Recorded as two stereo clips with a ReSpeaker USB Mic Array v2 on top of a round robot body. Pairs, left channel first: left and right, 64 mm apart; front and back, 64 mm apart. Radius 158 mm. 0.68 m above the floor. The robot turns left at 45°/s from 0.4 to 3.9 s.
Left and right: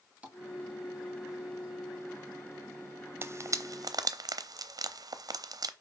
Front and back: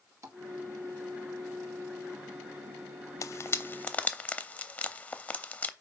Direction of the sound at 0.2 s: 160° right.